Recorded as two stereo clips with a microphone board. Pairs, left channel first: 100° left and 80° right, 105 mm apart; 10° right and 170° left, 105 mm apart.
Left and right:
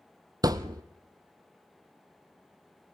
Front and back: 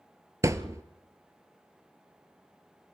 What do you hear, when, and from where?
0.4 s a thud: 130° right, 0.8 m